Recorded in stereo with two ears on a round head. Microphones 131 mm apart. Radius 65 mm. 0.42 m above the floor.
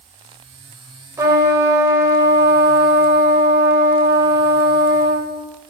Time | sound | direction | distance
1.2 | a trumpet | 20° right (ahead or behind) | 1.8 m